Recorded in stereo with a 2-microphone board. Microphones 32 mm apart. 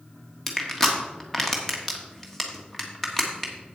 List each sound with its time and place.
0.5 s crushing: 10° left (ahead or behind), 1.4 m